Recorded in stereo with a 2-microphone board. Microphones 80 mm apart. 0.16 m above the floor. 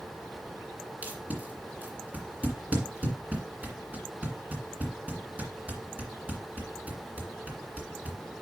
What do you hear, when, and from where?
1.0 s tape being pulled: 20° right (ahead or behind), 2.0 m